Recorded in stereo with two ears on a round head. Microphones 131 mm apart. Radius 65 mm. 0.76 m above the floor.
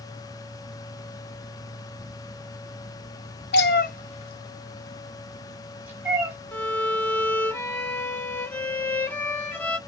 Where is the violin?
15° left (ahead or behind), 0.8 m.